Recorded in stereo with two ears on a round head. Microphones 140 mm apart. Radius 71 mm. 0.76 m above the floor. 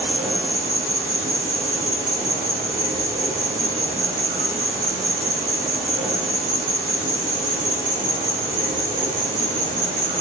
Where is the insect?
15° right (ahead or behind), 0.9 m.